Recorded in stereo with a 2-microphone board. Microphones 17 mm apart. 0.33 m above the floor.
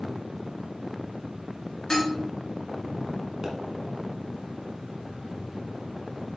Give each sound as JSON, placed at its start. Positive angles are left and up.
{"t": 1.9, "sound": "dishes clattering", "side_deg": 45, "distance_m": 2.5}
{"t": 3.4, "sound": "a pop", "side_deg": -70, "distance_m": 1.5}